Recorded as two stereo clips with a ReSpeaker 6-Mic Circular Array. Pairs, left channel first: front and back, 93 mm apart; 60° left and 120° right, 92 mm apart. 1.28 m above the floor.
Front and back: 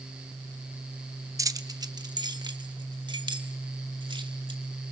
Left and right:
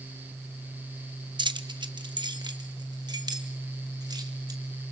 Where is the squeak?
I don't hear a squeak.